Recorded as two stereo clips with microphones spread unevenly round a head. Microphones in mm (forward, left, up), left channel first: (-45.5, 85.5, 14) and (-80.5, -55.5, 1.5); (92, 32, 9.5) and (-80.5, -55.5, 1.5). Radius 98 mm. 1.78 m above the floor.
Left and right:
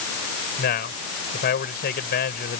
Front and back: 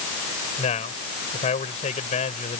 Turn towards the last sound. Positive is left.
turn(degrees=85)